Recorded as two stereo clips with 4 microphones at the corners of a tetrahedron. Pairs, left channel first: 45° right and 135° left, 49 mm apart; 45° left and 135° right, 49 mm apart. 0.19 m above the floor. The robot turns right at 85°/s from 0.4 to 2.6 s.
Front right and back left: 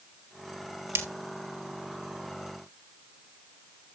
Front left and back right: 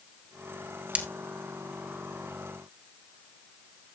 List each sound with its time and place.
0.9 s breaking glass: 160° left, 1.8 m; by 1.1 s 170° left, 1.8 m